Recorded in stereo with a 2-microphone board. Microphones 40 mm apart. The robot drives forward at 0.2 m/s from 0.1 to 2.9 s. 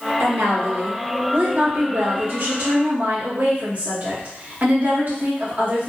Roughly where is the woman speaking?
Right.